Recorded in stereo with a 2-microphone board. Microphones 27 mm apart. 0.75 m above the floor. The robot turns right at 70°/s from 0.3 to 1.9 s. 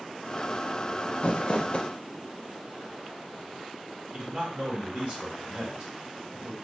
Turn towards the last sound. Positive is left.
turn(degrees=-25)  # may be behind; listen again after turning